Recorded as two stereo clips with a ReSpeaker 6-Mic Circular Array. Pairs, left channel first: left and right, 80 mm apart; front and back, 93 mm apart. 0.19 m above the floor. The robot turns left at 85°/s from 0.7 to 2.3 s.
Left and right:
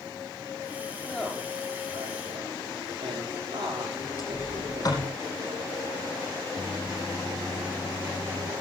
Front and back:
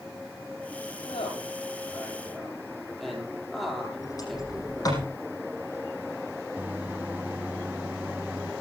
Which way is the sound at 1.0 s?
20° left.